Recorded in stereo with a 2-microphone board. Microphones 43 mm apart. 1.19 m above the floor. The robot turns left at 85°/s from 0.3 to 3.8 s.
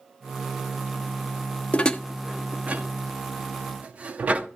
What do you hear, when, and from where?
1.7 s dishes clattering: 30° left (ahead or behind), 0.6 m; by 4.5 s 30° right (ahead or behind), 0.6 m